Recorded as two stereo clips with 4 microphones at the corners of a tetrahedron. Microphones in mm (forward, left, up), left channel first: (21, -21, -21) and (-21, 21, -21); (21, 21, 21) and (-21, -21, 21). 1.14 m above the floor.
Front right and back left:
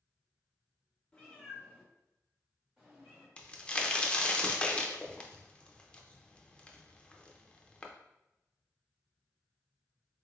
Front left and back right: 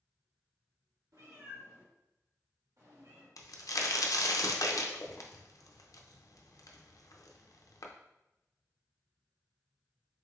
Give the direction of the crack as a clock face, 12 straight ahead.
11 o'clock.